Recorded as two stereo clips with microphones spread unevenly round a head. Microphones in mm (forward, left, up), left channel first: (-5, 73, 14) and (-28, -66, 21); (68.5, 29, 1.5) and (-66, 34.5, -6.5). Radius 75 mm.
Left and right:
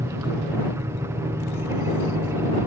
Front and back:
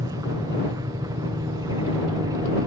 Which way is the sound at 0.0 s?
150° right.